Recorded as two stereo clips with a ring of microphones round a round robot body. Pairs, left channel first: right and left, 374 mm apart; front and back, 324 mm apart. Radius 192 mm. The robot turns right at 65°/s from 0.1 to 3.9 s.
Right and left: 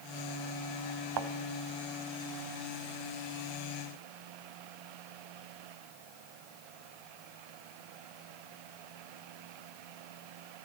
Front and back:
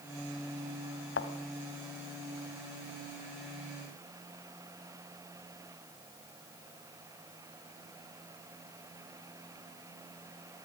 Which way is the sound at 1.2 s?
50° left.